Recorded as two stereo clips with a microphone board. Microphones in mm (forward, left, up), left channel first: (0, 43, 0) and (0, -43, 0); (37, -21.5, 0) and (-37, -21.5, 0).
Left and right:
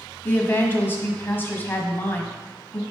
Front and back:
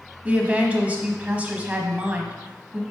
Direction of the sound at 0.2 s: 130° left.